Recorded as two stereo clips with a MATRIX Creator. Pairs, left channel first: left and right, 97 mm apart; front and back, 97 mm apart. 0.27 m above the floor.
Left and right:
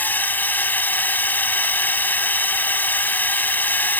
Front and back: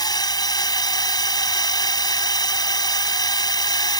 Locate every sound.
0.0 s a drone: 25° left